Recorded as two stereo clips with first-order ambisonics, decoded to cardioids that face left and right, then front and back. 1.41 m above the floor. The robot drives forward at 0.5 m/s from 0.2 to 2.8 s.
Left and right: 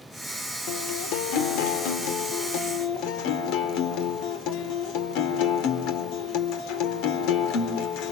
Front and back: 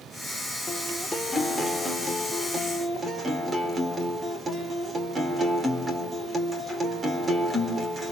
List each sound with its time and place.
0.7 s a guitar: 80° left, 2 m; by 8.1 s 105° left, 2 m